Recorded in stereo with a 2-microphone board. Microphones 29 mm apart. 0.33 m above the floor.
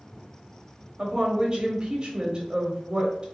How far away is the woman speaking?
About 1.1 m.